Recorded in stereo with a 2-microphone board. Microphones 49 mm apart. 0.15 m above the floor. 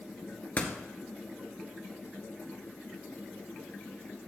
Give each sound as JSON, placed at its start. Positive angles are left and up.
{"t": 0.6, "sound": "a door slam", "side_deg": 35, "distance_m": 1.5}